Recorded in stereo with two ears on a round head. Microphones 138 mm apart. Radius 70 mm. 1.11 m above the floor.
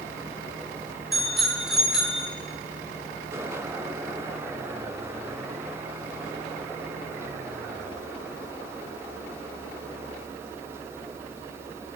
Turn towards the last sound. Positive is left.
turn(degrees=-5)  # may be behind; listen again after turning